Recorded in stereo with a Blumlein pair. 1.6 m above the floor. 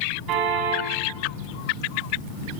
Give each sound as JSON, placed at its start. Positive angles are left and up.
{"t": 0.3, "sound": "a car horn", "azimuth_deg": -35, "distance_m": 7.0}